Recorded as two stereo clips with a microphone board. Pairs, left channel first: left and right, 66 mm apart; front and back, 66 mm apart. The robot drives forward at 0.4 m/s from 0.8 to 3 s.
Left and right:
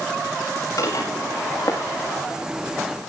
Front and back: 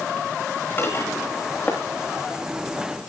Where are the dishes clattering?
55° left, 8.5 m.